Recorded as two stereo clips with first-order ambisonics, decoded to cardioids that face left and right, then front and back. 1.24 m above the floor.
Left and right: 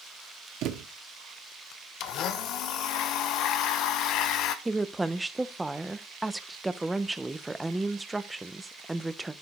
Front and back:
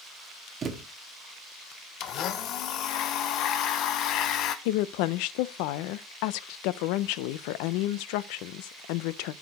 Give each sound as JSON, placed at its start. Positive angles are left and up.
{"t": 0.6, "sound": "a thud", "azimuth_deg": -120, "distance_m": 1.0}
{"t": 2.0, "sound": "a blender", "azimuth_deg": 45, "distance_m": 0.7}
{"t": 4.7, "sound": "a woman speaking", "azimuth_deg": -5, "distance_m": 0.5}